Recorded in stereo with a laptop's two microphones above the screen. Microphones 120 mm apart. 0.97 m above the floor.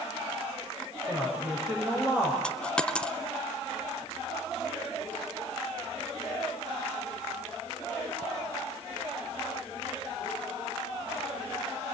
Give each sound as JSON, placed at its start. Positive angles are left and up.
{"t": 1.1, "sound": "a woman speaking", "side_deg": -15, "distance_m": 5.5}
{"t": 2.4, "sound": "a dropped coin", "side_deg": 10, "distance_m": 0.6}